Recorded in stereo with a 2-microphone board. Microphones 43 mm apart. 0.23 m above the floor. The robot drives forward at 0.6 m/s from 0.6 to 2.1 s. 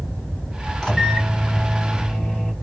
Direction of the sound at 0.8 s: 15° left (ahead or behind).